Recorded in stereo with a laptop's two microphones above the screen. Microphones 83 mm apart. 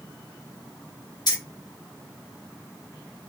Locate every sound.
1.3 s keys jangling: 55° left (ahead or behind), 1.2 m